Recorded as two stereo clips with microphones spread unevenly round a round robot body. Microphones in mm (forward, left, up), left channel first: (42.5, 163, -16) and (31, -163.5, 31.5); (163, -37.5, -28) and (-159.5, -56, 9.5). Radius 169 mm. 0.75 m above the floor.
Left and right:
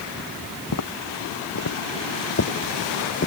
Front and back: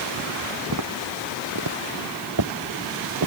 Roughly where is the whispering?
I don't hear whispering.